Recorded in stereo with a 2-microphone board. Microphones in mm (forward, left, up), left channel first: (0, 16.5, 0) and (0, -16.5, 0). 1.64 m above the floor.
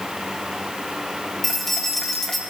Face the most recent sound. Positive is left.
turn(degrees=5)  # may be behind; listen again after turning